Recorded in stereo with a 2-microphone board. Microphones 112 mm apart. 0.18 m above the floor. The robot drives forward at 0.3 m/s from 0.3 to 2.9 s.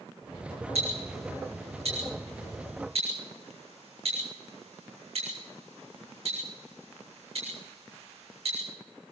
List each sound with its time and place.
0.8 s ticking: 70° right (ahead or behind), 6.5 m; by 8.6 s 65° right (ahead or behind), 6.5 m